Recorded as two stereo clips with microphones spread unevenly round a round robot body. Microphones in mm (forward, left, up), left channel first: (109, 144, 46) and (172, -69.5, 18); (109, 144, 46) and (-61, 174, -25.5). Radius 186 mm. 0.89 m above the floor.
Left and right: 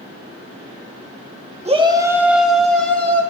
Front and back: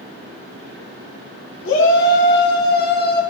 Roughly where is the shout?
Ahead.